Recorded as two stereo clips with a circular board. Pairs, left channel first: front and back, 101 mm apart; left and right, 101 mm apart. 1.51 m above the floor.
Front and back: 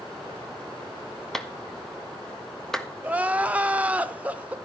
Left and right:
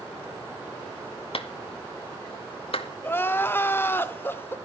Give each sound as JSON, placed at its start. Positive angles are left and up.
{"t": 1.3, "sound": "a clap", "azimuth_deg": 85, "distance_m": 1.6}
{"t": 3.0, "sound": "crying", "azimuth_deg": 125, "distance_m": 1.2}